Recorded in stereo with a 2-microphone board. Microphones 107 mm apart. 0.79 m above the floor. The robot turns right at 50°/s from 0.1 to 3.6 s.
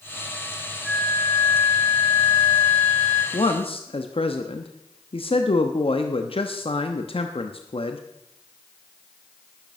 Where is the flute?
5° right, 7.5 m; by 3.2 s 115° left, 7.5 m.